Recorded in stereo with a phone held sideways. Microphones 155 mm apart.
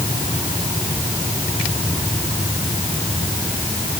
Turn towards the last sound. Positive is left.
No sound to turn to.